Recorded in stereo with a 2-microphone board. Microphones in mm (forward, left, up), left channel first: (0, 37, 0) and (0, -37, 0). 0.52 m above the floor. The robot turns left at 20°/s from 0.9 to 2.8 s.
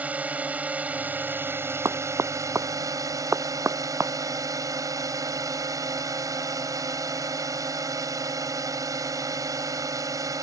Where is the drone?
25° right; by 10.4 s 60° right.